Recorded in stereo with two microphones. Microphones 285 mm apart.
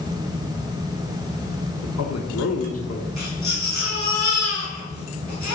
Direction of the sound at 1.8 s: 65° left (ahead or behind).